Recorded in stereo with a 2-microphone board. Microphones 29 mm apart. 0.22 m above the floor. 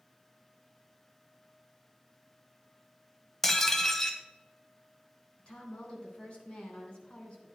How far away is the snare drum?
I don't hear a snare drum.